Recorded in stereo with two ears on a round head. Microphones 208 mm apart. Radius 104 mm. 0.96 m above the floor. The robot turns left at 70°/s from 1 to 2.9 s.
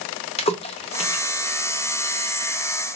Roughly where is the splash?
Left.